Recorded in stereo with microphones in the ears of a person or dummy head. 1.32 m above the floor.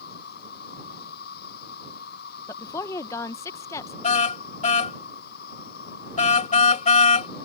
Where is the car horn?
35° left (ahead or behind).